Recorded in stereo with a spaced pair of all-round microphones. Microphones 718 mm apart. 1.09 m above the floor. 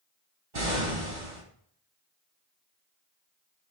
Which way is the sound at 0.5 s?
75° right (ahead or behind).